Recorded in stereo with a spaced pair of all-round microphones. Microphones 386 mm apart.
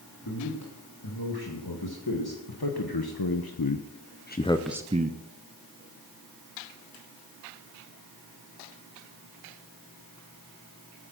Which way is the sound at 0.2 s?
70° left (ahead or behind).